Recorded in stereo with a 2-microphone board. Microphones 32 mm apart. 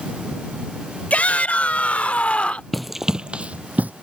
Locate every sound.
1.1 s a shout: 45° left (ahead or behind); by 2.6 s 40° left (ahead or behind)
2.7 s running footsteps: 5° left (ahead or behind); by 3.9 s 55° right (ahead or behind)